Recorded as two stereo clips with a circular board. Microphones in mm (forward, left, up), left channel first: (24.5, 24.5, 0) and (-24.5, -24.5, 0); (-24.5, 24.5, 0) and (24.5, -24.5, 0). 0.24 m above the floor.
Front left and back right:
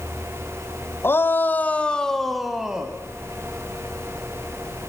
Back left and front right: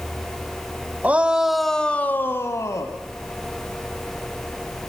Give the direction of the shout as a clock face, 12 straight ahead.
12 o'clock.